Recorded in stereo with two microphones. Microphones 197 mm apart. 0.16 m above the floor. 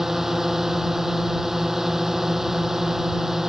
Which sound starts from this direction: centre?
A drone, at 0.0 s.